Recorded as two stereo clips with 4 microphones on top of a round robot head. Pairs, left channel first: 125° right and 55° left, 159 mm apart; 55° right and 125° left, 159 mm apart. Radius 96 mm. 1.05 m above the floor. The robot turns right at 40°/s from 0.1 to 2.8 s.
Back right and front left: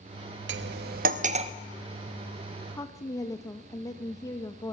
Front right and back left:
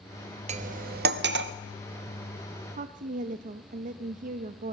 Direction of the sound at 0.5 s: 75° left.